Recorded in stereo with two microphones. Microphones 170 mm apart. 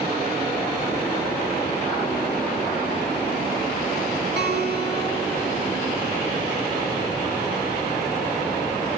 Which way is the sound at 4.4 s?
85° right.